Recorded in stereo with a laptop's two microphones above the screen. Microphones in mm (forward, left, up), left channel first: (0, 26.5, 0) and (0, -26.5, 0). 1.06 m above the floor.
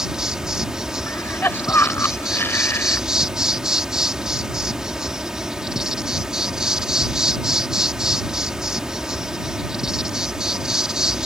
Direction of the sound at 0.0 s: 15° right (ahead or behind).